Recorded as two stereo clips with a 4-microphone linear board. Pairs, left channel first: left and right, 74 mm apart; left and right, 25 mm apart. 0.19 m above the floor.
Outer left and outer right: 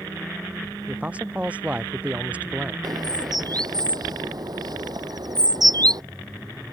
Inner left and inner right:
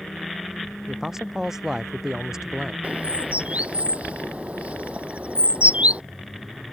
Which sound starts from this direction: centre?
A man speaking, at 0.9 s.